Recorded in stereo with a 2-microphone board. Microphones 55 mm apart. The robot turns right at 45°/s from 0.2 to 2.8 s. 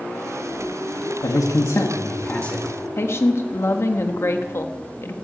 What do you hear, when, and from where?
1.2 s a man speaking: 105° left, 1.5 m; by 2.7 s 170° left, 1.5 m
3.0 s a woman speaking: 45° left (ahead or behind), 1.4 m